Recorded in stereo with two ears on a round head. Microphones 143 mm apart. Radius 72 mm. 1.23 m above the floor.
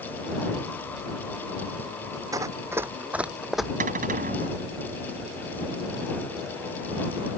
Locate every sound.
2.3 s running footsteps: 20° right (ahead or behind); by 3.7 s centre (ahead or behind)
3.8 s a cupboard door: 55° right (ahead or behind)